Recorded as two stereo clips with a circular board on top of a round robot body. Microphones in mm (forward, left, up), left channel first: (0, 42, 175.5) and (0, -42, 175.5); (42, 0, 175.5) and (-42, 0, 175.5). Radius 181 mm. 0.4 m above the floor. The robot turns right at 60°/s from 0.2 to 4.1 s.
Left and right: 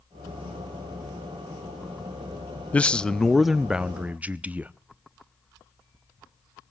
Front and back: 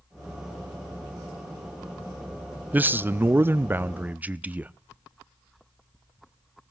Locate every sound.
2.7 s a man speaking: 140° left, 0.8 m; by 4.7 s 135° right, 0.8 m